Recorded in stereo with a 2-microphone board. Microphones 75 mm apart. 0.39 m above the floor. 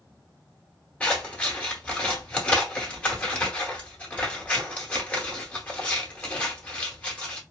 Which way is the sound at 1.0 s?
20° left (ahead or behind).